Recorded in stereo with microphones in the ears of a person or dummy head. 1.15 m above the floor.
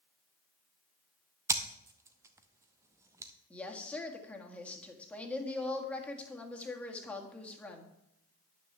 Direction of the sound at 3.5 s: 5° left (ahead or behind).